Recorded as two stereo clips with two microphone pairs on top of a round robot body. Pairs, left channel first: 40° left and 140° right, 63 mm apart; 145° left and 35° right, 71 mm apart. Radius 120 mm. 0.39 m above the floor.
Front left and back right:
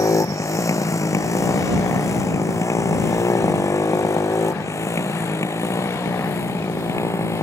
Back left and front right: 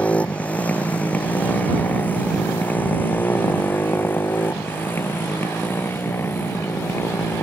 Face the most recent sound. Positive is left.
turn(degrees=80)